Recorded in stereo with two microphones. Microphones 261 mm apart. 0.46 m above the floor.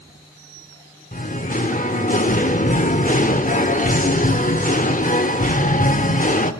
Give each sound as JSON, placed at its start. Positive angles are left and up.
{"t": 1.1, "sound": "singing", "side_deg": 30, "distance_m": 0.9}